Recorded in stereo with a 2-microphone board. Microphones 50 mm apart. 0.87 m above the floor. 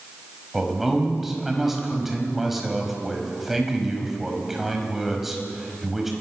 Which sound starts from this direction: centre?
A man speaking, at 0.5 s.